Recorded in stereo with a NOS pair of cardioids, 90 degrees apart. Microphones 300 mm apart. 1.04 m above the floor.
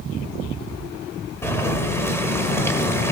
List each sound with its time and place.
1.4 s boiling: 10° left, 2 m